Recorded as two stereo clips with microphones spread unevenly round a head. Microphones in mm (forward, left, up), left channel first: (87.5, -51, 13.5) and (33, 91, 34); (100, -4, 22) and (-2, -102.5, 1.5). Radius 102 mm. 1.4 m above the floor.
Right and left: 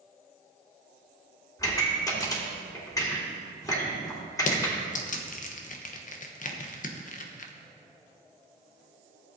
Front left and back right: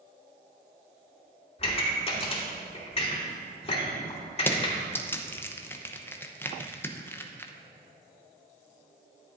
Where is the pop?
Straight ahead, 3 m.